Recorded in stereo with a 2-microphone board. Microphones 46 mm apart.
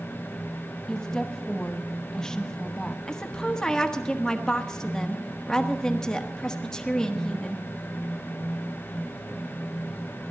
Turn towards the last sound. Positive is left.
turn(degrees=15)  # may be behind; listen again after turning